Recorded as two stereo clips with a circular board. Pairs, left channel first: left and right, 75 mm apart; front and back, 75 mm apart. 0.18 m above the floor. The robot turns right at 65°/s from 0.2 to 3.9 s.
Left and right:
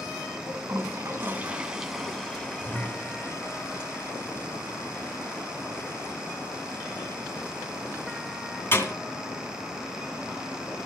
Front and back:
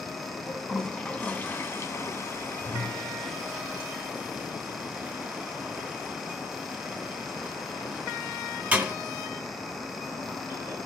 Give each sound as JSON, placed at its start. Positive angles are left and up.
{"t": 0.5, "sound": "a toilet flushing", "azimuth_deg": -95, "distance_m": 1.8}